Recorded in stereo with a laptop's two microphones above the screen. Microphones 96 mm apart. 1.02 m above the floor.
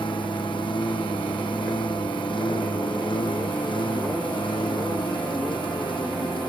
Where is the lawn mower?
55° left (ahead or behind).